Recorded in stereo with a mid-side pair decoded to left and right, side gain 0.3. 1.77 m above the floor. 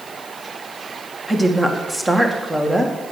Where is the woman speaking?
15° right, 2 m.